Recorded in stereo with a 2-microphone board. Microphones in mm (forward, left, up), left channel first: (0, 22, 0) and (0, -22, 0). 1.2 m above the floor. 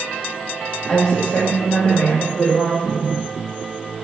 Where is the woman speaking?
25° left (ahead or behind), 1.2 m; by 3.1 s 55° left (ahead or behind), 2 m.